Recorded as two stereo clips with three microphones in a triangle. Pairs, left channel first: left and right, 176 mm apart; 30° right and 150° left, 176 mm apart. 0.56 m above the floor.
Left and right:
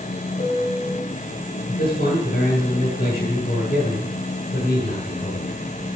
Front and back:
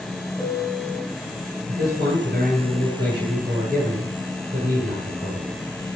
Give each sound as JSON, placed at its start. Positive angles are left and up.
{"t": 0.4, "sound": "a piano", "azimuth_deg": 45, "distance_m": 3.0}
{"t": 1.7, "sound": "a man speaking", "azimuth_deg": 125, "distance_m": 8.0}